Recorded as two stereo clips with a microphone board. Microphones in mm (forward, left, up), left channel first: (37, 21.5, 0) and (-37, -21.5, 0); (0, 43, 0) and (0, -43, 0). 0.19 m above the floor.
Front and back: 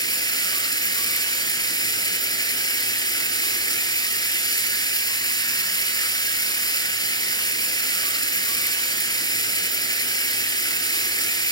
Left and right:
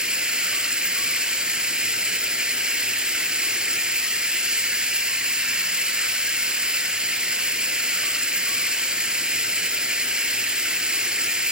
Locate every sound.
0.0 s running water: 10° right, 0.7 m